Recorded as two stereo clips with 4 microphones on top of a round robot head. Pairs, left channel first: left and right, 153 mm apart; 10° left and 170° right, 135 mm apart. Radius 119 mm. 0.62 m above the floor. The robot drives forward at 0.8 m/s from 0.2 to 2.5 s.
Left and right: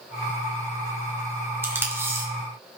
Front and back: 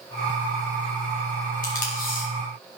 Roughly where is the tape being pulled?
Ahead.